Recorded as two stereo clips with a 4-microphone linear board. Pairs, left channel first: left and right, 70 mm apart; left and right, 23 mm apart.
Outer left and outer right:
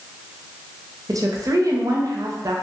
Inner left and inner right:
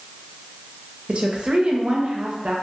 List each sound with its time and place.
1.1 s a woman speaking: 55° right (ahead or behind), 0.6 m